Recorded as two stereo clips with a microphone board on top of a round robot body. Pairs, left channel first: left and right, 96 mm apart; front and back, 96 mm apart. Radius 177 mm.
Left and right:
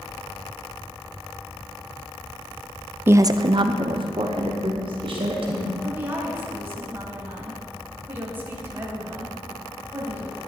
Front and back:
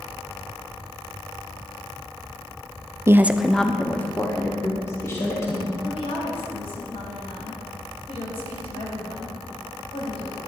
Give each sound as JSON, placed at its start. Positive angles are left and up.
{"t": 3.1, "sound": "a woman speaking", "azimuth_deg": -140, "distance_m": 0.8}
{"t": 5.8, "sound": "a woman speaking", "azimuth_deg": -20, "distance_m": 3.5}